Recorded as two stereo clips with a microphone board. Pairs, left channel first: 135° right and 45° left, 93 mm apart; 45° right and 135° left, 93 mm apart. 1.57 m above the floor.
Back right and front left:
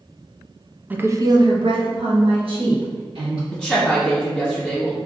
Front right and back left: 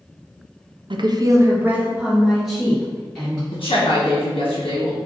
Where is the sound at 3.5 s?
55° right, 1.1 m.